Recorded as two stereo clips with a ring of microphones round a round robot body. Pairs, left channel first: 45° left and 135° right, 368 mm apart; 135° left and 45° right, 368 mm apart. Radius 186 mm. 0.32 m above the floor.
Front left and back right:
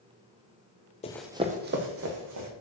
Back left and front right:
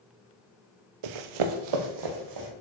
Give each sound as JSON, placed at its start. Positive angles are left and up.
{"t": 1.0, "sound": "running footsteps", "azimuth_deg": -30, "distance_m": 0.6}